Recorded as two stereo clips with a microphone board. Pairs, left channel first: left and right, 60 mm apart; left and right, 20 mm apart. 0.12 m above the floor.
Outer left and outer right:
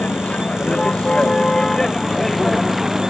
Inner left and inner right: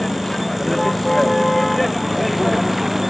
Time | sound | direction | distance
0.0 | a vehicle | 20° left (ahead or behind) | ?